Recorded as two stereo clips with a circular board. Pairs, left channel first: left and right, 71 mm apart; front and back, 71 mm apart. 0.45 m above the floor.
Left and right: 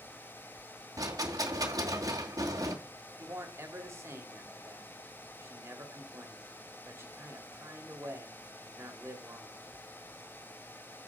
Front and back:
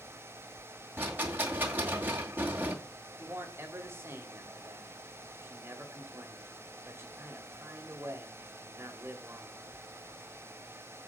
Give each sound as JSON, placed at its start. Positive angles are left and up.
{"t": 1.0, "sound": "a rattle", "azimuth_deg": -120, "distance_m": 2.0}
{"t": 3.2, "sound": "a man speaking", "azimuth_deg": -135, "distance_m": 2.0}